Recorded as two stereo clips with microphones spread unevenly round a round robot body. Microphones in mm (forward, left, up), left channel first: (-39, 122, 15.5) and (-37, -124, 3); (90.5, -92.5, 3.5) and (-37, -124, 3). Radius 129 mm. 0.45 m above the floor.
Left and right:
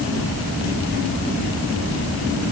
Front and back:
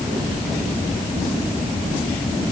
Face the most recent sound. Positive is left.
No sound to turn to.